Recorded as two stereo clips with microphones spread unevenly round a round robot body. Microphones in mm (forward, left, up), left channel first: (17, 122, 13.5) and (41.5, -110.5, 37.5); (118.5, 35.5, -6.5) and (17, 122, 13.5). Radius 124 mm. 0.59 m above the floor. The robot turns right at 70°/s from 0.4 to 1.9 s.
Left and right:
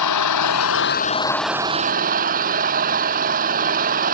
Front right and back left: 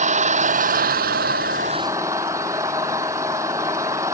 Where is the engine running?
115° left; by 4.2 s 140° right.